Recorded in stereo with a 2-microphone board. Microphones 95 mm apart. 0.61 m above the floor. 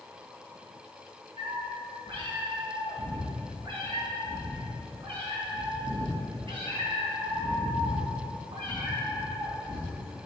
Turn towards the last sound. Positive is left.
turn(degrees=-65)  # may be behind; listen again after turning